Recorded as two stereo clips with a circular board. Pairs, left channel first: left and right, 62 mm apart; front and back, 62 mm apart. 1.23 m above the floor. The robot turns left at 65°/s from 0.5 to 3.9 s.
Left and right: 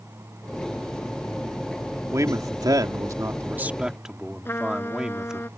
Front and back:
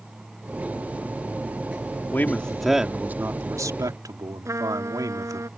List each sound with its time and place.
2.1 s a man speaking: 55° right; by 5.5 s 170° right
4.5 s a trumpet: 145° left